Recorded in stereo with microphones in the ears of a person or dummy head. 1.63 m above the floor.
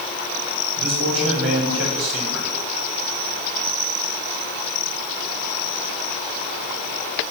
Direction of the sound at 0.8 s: 75° right (ahead or behind).